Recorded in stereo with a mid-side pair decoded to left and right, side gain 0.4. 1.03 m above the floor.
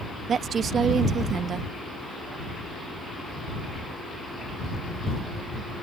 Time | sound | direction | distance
0.3 | a woman speaking | 60° right | ?